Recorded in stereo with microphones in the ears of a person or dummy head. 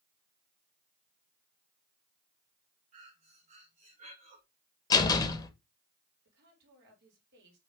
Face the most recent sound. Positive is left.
turn(degrees=-65)  # may be behind; listen again after turning